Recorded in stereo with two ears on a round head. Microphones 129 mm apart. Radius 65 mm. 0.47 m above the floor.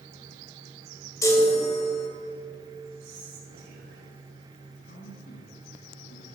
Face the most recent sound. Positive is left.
turn(degrees=75)  # may be behind; listen again after turning